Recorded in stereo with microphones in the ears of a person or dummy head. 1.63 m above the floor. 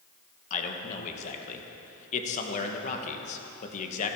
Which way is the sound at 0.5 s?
40° left (ahead or behind).